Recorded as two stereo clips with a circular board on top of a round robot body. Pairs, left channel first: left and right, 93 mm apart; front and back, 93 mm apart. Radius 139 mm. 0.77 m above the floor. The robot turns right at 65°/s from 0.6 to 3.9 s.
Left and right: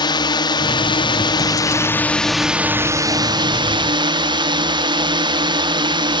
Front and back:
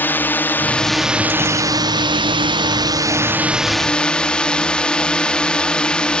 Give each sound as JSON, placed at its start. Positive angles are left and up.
{"t": 0.0, "sound": "a drone", "azimuth_deg": 65}